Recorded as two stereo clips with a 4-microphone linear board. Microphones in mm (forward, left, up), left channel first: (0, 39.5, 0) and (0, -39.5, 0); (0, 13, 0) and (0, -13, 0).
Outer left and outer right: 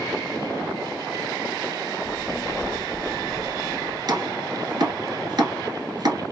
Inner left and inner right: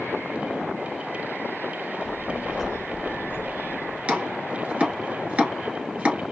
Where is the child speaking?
15° left (ahead or behind), 0.7 m; by 4.0 s 50° right (ahead or behind), 1.1 m.